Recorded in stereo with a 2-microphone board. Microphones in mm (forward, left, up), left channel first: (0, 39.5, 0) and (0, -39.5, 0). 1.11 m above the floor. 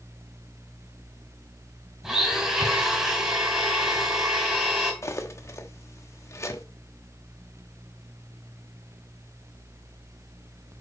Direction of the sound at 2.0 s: 10° right (ahead or behind).